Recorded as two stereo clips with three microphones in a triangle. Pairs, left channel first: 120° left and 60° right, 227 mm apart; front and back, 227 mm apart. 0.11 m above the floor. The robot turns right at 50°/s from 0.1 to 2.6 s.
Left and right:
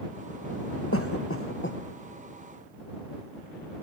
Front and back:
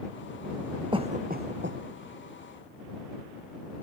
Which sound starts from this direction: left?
A cough, at 0.9 s.